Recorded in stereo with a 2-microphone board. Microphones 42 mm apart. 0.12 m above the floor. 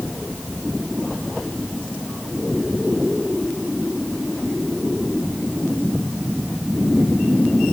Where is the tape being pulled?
No tape being pulled in this recording.